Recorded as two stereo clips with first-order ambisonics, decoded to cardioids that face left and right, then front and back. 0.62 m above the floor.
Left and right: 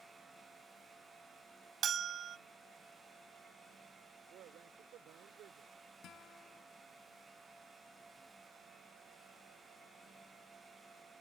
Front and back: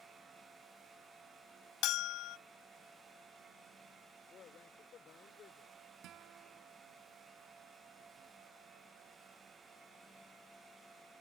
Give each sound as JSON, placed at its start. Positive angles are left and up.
{"t": 1.8, "sound": "a bell", "azimuth_deg": -30}
{"t": 4.3, "sound": "a man speaking", "azimuth_deg": -50}
{"t": 6.0, "sound": "a guitar", "azimuth_deg": 140}